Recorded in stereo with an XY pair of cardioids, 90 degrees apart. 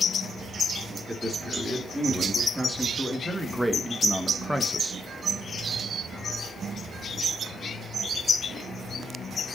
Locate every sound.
1.1 s a man speaking: 5° right, 4 m; by 5.0 s straight ahead, 1.4 m